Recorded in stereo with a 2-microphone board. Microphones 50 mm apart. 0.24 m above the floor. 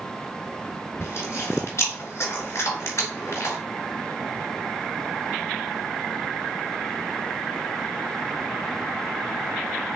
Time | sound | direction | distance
1.0 | chewing | 65° left (ahead or behind) | 1.4 m